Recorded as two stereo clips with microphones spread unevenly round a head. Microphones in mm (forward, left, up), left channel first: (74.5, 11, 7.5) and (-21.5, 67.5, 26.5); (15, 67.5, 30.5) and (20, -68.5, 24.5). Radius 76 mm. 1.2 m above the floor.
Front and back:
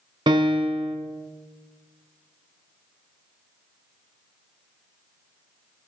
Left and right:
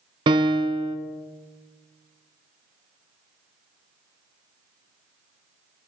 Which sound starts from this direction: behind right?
A piano, at 0.3 s.